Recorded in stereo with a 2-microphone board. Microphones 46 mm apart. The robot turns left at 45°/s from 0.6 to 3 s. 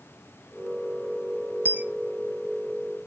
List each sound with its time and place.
1.6 s a dropped coin: 45° right (ahead or behind), 0.7 m; by 1.8 s 35° right (ahead or behind), 0.7 m